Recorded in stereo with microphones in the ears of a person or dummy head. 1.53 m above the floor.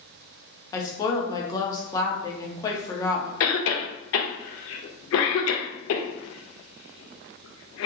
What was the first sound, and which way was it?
A woman speaking, 20° left (ahead or behind).